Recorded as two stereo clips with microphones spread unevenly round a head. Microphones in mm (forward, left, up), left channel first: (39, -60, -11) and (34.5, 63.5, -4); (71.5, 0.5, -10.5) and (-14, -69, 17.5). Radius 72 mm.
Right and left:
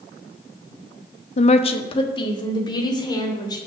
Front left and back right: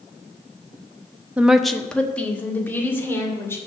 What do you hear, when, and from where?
1.4 s a woman speaking: 60° right, 0.7 m; by 3.6 s 30° right, 3 m